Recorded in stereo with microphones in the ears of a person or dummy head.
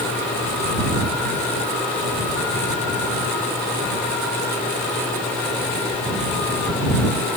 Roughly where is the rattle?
No rattle in this recording.